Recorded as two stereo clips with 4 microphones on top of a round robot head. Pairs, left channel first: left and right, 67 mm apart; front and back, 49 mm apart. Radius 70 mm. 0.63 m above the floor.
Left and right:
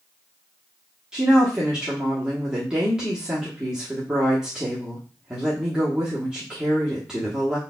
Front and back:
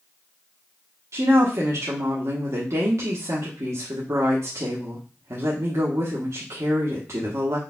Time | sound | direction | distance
1.1 | a woman speaking | 170° right | 1.1 m